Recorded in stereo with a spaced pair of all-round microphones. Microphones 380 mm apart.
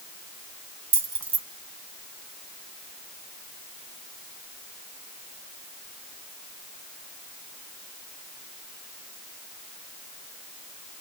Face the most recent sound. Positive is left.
turn(degrees=-65)  # may be behind; listen again after turning